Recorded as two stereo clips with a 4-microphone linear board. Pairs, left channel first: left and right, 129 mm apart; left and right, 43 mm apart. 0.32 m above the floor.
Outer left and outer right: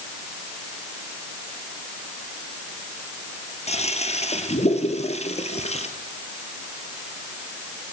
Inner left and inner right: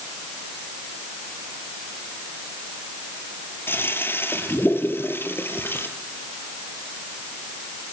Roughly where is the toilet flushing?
Left.